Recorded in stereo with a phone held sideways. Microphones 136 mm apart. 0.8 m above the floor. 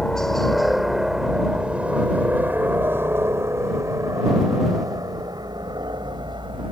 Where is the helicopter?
5° left (ahead or behind); by 6.7 s 35° right (ahead or behind).